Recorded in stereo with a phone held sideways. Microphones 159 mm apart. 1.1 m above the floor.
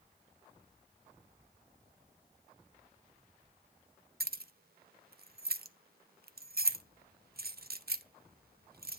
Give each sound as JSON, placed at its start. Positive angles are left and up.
{"t": 4.2, "sound": "keys jangling", "side_deg": -75, "distance_m": 0.5}